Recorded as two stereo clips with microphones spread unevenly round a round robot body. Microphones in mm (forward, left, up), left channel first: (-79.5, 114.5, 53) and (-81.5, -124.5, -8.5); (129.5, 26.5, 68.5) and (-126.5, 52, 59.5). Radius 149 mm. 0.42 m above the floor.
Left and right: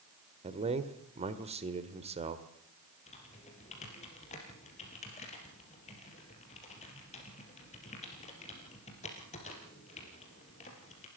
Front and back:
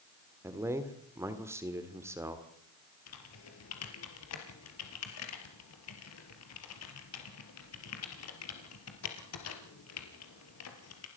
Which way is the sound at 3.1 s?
20° left.